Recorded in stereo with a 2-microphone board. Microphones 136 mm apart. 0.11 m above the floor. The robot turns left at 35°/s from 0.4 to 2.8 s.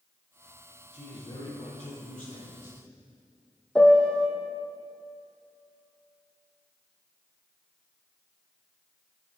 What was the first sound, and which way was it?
A man speaking, 140° left.